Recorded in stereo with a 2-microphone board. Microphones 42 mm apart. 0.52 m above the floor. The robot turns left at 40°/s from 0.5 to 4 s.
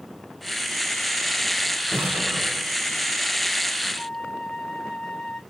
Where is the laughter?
No laughter in this recording.